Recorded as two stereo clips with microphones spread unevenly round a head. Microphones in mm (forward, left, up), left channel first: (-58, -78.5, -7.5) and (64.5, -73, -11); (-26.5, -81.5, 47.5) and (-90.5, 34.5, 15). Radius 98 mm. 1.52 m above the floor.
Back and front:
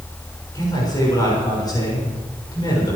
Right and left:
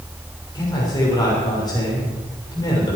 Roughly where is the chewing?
I don't hear chewing.